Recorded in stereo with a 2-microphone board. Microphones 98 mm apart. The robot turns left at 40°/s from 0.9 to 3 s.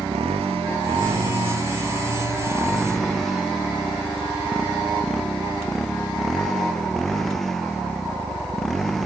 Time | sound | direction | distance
0.0 | a motorcycle | 100° right | ?